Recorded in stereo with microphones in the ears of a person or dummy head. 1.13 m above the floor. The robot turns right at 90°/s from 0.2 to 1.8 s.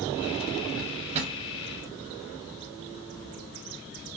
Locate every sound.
0.8 s a drawer: 70° right (ahead or behind), 0.6 m; by 1.4 s 20° right (ahead or behind), 0.6 m